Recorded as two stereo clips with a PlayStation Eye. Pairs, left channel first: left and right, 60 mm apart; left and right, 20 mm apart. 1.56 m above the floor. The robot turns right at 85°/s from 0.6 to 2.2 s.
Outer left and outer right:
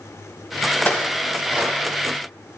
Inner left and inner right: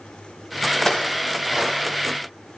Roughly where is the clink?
Left.